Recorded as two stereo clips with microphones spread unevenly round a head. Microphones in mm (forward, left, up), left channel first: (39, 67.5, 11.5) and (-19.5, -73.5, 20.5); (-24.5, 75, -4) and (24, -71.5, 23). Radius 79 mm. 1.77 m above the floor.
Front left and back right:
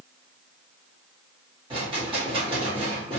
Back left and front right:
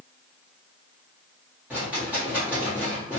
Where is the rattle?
130° right, 1.4 m.